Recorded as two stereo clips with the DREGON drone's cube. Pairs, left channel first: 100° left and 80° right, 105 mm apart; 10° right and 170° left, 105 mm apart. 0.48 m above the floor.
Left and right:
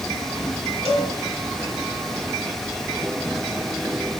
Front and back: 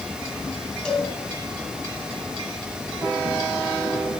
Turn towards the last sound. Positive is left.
turn(degrees=-95)